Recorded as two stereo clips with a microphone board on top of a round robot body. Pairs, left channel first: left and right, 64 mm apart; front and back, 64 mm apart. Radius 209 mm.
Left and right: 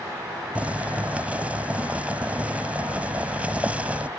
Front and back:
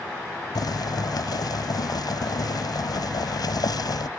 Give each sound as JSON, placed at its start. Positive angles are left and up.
{"t": 0.6, "sound": "boiling", "azimuth_deg": -20}